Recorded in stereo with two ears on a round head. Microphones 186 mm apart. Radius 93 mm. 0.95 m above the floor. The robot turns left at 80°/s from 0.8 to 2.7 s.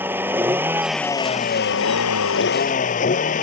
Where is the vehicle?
170° right; by 3.4 s 40° left.